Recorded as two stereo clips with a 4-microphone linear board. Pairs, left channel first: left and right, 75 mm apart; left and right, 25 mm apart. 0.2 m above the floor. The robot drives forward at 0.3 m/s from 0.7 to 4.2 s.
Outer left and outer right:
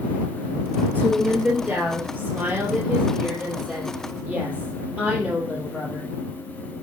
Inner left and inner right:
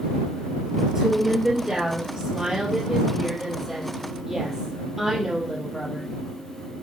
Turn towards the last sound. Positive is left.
turn(degrees=-20)  # may be behind; listen again after turning